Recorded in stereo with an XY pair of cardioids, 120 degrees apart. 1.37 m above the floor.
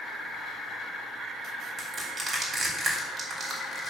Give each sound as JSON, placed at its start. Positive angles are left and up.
{"t": 1.8, "sound": "crushing", "azimuth_deg": -25, "distance_m": 3.0}